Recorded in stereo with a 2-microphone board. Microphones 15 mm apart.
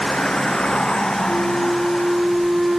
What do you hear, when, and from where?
0.0 s a vehicle: 80° left; by 2.8 s 60° left (ahead or behind)
1.3 s a flute: 50° right (ahead or behind)